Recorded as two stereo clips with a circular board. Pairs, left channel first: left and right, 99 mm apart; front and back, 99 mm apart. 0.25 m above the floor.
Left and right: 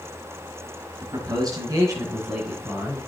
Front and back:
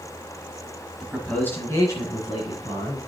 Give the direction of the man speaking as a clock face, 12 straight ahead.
3 o'clock.